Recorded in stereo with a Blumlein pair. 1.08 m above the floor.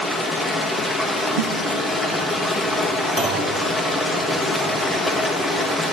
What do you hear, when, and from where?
0.0 s running water: 5° left, 1.1 m
1.4 s a snare drum: 60° right, 0.8 m
3.2 s a clunk: 10° right, 1.7 m